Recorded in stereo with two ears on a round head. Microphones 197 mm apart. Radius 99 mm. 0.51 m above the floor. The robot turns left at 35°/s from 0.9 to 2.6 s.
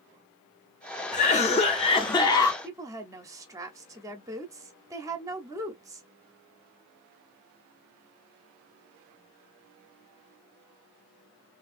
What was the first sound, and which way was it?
A cough, 75° left.